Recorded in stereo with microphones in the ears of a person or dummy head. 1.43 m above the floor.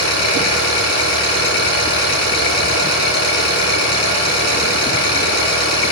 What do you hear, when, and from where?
0.0 s an engine running: 55° left (ahead or behind), 6.5 m